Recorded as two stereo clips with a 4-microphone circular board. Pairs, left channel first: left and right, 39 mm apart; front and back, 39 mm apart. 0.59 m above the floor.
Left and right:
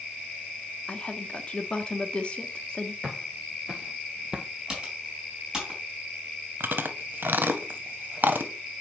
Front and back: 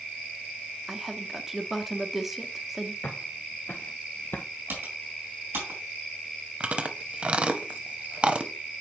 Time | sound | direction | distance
0.9 | a woman speaking | 105° left | 0.9 m
3.0 | footsteps | 10° right | 1.5 m
4.7 | typing on a keyboard | 165° right | 3.5 m
6.6 | chewing | 120° right | 0.7 m